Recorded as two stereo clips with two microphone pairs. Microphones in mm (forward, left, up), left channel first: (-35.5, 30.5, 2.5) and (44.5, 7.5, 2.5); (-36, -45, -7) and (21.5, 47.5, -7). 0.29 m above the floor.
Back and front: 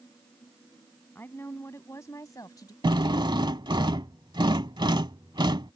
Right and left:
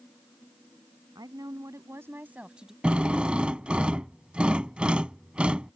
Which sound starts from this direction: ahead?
A drill, at 2.8 s.